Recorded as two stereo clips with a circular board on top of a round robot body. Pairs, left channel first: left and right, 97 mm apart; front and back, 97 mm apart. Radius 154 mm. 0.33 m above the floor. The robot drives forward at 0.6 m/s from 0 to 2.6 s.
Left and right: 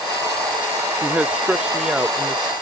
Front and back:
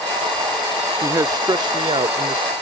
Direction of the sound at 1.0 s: 155° right.